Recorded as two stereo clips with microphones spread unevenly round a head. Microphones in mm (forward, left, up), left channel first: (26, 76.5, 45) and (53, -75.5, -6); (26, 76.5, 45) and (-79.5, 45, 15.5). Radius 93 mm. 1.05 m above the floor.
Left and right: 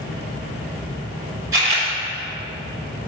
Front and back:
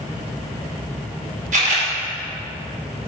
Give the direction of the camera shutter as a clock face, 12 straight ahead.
5 o'clock.